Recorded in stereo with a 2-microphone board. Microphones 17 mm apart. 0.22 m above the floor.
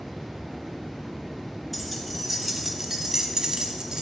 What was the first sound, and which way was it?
Keys jangling, centre (ahead or behind).